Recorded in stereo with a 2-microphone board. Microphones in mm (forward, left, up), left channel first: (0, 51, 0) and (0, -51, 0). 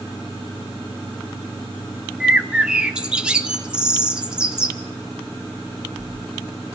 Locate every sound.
2.2 s a bird: 10° right (ahead or behind), 1.1 m